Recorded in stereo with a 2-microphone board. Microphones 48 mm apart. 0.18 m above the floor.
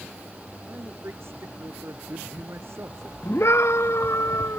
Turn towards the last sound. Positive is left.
turn(degrees=65)  # may be behind; listen again after turning